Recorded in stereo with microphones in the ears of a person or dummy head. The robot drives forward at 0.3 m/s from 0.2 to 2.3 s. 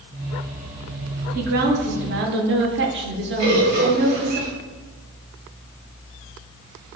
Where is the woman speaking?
45° right (ahead or behind), 0.6 m; by 4.4 s 50° right (ahead or behind), 0.6 m.